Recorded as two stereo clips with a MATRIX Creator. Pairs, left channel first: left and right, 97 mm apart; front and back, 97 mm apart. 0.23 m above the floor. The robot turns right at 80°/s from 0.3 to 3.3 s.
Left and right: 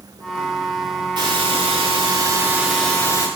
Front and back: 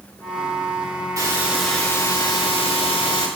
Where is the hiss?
125° right, 9 m; by 3.3 s 45° left, 9 m.